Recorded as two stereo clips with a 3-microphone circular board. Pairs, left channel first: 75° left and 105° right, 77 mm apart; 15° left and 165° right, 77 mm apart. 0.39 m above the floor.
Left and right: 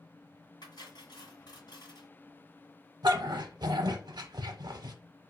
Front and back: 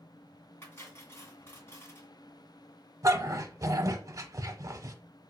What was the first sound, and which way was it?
Cutlery clinking, 65° left.